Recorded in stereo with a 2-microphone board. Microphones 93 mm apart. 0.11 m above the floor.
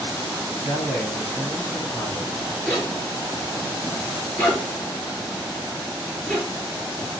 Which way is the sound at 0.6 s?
20° left (ahead or behind).